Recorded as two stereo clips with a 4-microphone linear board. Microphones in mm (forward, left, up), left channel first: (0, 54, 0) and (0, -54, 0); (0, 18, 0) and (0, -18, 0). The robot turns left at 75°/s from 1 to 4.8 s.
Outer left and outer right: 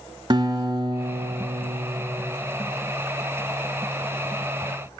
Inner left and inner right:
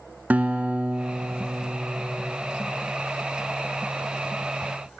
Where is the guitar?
45° right, 0.6 m; by 2.4 s 150° right, 0.6 m.